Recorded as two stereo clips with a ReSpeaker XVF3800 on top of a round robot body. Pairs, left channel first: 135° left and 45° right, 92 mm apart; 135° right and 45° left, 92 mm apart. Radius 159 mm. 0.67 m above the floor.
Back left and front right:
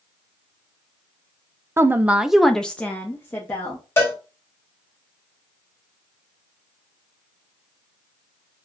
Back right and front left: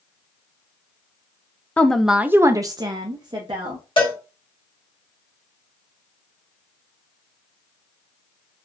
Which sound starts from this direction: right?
A woman speaking, at 1.8 s.